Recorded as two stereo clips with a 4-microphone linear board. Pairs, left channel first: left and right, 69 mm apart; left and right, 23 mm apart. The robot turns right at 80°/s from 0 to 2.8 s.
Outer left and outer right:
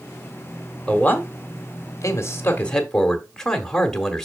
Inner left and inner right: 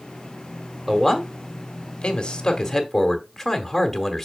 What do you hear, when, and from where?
0.9 s a man speaking: 15° left, 1.4 m; by 4.2 s 170° left, 1.4 m